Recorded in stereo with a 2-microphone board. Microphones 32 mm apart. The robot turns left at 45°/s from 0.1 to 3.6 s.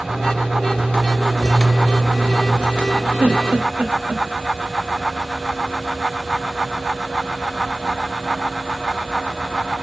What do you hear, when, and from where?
3.2 s a giggle: 75° right (ahead or behind), 0.8 m; by 4.2 s 60° right (ahead or behind), 0.8 m